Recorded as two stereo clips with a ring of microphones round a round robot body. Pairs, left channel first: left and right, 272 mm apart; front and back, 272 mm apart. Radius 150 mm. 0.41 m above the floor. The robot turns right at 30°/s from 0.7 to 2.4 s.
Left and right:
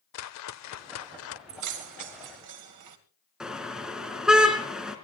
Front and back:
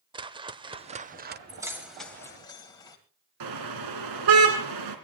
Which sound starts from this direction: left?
A whoosh, at 0.1 s.